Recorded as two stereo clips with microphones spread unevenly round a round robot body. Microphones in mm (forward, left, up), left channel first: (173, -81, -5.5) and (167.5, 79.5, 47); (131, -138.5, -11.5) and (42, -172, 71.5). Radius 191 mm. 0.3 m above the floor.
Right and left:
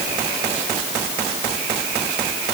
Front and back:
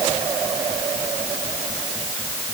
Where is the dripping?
No dripping in this recording.